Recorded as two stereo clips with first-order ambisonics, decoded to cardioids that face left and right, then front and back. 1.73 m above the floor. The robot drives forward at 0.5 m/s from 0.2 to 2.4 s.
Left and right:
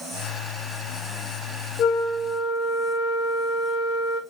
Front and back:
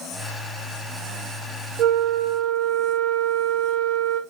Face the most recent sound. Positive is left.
turn(degrees=150)